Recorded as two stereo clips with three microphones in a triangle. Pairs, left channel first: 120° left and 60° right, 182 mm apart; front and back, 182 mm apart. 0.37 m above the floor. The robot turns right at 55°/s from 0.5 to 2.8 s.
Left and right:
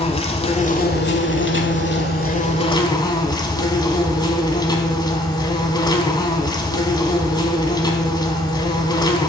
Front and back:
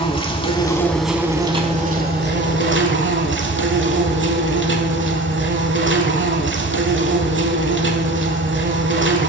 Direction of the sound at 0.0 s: 60° left.